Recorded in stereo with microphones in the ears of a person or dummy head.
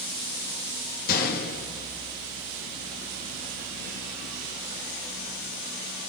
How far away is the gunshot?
About 2.0 m.